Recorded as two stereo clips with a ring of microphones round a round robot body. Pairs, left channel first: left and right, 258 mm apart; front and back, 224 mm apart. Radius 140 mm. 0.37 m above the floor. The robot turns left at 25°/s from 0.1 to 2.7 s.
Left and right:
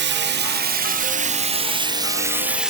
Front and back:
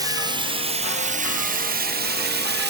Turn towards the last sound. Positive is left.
turn(degrees=-175)